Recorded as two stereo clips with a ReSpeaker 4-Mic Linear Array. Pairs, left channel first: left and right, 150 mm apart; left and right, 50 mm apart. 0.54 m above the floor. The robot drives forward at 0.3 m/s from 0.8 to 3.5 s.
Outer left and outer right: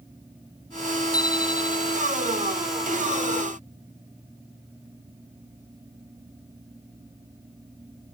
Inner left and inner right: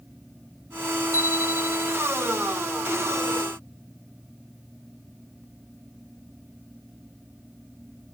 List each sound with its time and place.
1.1 s a bicycle bell: 90° left